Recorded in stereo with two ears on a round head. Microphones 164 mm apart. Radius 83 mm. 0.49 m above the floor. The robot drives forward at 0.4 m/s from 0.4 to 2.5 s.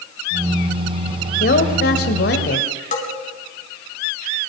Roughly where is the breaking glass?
No breaking glass in this recording.